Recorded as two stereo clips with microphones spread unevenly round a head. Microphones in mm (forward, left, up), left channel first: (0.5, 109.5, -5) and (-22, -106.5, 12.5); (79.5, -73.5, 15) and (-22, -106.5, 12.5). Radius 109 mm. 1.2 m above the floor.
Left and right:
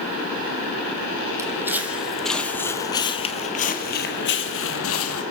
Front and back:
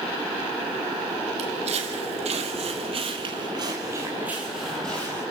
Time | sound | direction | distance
1.4 | footsteps | 170° right | 3 m